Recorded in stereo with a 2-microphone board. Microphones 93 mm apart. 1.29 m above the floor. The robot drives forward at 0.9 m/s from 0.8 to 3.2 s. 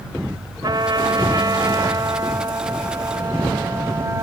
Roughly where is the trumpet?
Right.